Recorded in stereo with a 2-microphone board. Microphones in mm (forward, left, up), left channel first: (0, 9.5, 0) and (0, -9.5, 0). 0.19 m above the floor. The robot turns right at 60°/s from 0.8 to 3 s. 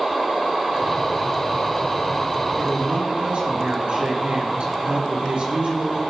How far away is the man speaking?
About 4 m.